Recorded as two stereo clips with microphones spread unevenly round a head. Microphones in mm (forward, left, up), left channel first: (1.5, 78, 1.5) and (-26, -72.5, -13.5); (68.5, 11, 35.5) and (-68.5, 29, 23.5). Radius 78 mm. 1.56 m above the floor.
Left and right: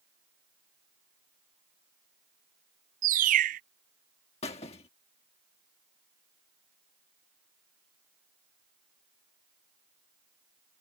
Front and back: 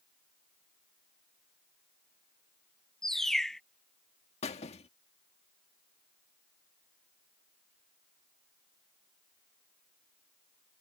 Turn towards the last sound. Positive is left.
turn(degrees=30)